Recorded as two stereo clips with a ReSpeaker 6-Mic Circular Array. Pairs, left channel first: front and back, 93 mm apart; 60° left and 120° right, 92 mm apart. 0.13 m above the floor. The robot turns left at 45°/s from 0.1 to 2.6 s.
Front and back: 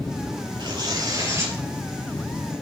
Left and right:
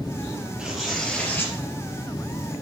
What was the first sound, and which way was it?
Tearing paper, 160° left.